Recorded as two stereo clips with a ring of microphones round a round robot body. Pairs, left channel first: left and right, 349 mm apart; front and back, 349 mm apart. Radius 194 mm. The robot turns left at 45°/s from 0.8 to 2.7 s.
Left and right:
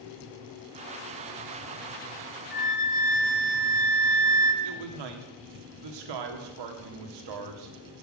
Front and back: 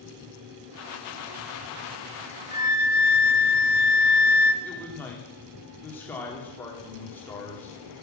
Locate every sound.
2.5 s a flute: 75° left, 1.2 m; by 4.5 s 65° left, 1.2 m
4.6 s a man speaking: 85° right, 1.9 m